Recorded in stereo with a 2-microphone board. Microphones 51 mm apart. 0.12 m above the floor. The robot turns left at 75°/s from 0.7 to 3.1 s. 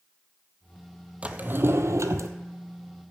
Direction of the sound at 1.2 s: 25° right.